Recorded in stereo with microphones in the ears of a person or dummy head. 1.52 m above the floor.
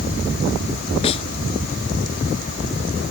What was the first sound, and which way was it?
A snare drum, 35° left (ahead or behind).